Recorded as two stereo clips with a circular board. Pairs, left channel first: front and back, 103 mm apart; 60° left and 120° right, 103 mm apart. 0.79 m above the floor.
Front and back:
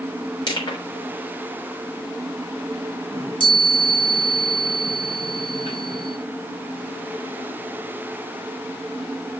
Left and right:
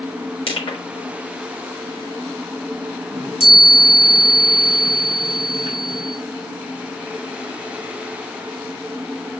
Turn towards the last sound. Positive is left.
turn(degrees=35)